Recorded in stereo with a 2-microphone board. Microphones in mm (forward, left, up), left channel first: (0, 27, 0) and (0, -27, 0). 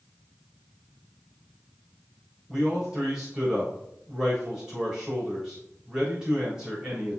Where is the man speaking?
15° right (ahead or behind), 4 m.